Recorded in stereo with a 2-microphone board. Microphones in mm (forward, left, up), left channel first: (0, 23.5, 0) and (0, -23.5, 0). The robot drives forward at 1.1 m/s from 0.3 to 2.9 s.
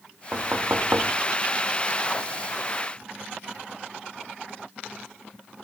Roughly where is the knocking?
Right.